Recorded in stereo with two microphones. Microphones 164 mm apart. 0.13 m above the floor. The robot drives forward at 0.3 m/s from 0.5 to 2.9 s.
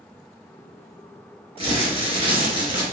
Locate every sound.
1.6 s crumpling: 35° right (ahead or behind), 1.8 m